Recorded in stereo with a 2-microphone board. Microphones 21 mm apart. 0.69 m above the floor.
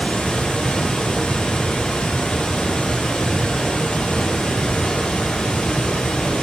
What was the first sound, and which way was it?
Running water, 65° left (ahead or behind).